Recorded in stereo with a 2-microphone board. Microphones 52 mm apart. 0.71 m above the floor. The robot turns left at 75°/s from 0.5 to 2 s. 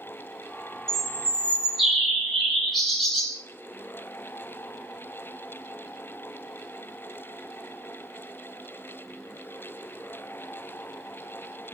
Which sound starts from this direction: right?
A bird, at 0.9 s.